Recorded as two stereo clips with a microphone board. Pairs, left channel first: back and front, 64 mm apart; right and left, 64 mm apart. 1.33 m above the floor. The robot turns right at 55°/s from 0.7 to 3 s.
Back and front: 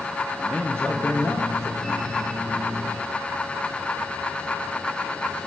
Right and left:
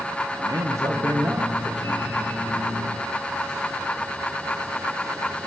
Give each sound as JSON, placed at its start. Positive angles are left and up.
{"t": 0.4, "sound": "a man speaking", "azimuth_deg": 105, "distance_m": 1.3}